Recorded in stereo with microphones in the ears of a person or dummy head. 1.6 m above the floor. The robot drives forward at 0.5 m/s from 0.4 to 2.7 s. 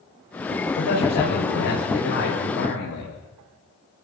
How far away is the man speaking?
About 7.5 m.